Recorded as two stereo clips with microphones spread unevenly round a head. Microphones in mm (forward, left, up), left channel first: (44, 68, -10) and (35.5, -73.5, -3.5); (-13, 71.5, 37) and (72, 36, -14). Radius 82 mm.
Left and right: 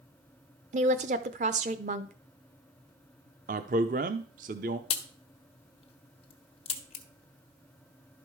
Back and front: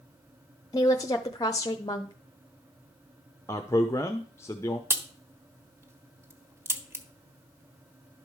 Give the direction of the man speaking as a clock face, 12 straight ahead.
5 o'clock.